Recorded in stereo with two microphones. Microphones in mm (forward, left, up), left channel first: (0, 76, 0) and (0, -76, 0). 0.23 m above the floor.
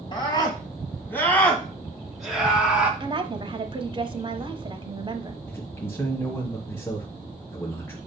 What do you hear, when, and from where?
0.1 s a scream: 30° left (ahead or behind), 1.7 m; by 2.9 s 10° right (ahead or behind), 2.5 m
3.0 s a woman speaking: 35° right (ahead or behind), 1.1 m
5.5 s a man speaking: 15° left (ahead or behind), 1.4 m